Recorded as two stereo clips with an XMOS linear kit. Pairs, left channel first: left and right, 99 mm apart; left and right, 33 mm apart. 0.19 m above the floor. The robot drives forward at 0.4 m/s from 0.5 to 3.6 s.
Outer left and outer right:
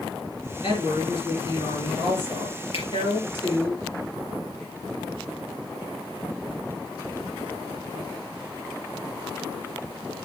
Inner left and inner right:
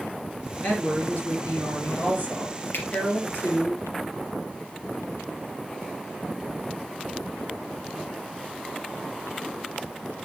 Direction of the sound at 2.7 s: 65° left (ahead or behind).